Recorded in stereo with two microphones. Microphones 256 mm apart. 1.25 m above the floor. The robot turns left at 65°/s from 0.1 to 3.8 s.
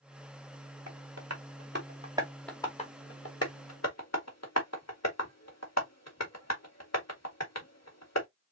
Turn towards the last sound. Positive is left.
turn(degrees=85)